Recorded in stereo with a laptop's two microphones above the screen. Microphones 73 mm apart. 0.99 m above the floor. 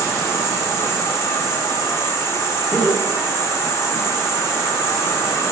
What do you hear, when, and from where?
0.0 s an insect: 40° left (ahead or behind), 0.7 m
2.7 s laughter: 30° left (ahead or behind), 1.8 m